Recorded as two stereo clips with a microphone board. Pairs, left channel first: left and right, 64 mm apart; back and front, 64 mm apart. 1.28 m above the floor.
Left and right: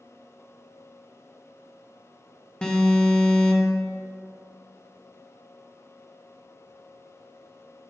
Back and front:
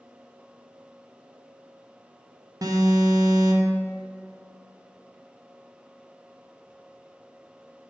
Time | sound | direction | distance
2.6 | an alarm | 15° left | 1.2 m